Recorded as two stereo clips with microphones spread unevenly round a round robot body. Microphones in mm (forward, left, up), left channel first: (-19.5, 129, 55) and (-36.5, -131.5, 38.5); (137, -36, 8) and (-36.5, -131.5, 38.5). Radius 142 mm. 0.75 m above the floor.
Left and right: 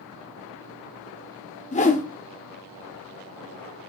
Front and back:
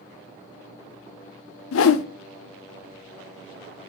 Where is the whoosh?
20° left, 0.7 m.